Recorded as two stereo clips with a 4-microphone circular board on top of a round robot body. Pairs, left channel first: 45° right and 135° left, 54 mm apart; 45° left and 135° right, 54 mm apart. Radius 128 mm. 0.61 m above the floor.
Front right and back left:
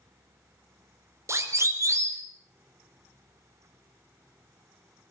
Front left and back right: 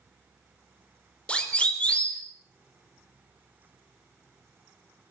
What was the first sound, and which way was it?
A siren, 110° left.